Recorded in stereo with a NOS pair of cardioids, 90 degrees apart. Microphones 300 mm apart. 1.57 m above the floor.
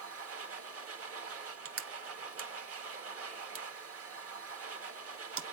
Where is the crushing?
50° right, 0.9 m.